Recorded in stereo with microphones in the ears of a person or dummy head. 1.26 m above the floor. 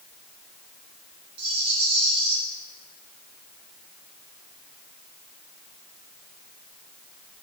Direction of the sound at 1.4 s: 35° right (ahead or behind).